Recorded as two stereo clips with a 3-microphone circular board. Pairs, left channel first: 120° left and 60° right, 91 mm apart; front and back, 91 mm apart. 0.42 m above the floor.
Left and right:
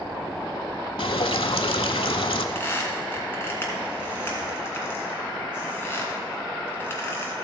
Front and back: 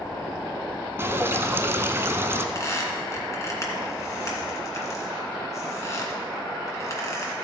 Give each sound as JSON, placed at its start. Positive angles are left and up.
{"t": 1.0, "sound": "dripping", "azimuth_deg": 120, "distance_m": 0.6}
{"t": 2.5, "sound": "a squeak", "azimuth_deg": 55, "distance_m": 1.8}